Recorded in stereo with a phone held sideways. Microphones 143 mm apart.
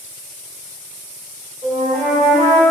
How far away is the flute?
About 1.9 m.